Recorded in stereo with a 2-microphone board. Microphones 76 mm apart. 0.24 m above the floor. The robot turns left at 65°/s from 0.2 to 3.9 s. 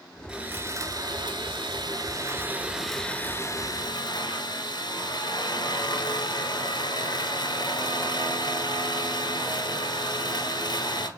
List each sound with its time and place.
0.3 s sawing: 10° right, 0.9 m; by 11.1 s 115° left, 0.9 m